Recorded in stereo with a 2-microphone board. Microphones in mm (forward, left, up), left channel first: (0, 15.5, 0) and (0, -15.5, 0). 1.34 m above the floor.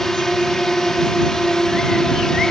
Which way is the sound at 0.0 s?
15° left (ahead or behind).